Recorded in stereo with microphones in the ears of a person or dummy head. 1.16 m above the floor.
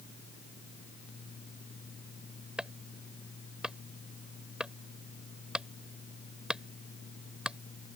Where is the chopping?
Centre (ahead or behind).